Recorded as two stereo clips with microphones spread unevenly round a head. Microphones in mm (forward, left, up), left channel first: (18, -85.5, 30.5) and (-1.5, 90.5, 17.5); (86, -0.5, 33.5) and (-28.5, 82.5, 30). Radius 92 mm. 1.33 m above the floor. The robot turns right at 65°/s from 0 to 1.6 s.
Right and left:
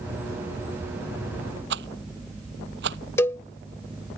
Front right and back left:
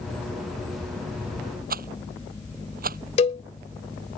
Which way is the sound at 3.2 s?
20° right.